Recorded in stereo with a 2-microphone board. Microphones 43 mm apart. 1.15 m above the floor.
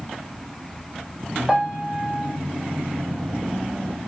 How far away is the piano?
About 1.5 m.